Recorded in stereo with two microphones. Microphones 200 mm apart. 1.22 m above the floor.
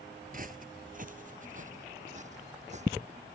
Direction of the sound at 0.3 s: 45° right (ahead or behind).